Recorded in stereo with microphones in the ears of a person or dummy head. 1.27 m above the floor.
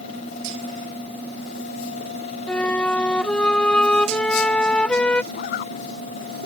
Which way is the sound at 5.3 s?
50° left (ahead or behind).